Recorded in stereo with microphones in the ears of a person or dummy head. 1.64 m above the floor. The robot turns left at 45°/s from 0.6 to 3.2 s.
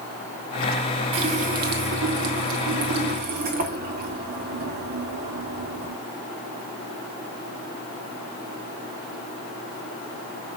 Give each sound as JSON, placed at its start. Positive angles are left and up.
{"t": 1.1, "sound": "a running tap", "azimuth_deg": -35, "distance_m": 2.0}